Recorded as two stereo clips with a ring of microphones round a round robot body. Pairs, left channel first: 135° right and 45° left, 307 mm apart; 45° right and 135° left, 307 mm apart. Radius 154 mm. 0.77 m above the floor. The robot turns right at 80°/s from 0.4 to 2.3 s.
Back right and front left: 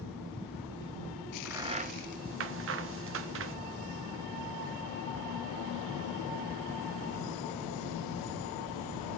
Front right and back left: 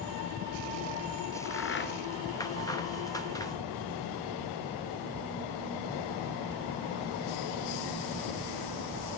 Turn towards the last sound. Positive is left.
turn(degrees=30)